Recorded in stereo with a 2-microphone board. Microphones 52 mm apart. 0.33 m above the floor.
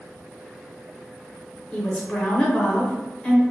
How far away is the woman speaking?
About 0.9 m.